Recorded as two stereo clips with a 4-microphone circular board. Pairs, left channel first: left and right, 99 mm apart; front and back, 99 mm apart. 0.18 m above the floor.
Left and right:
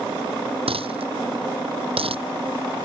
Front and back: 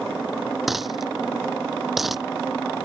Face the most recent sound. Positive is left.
turn(degrees=-90)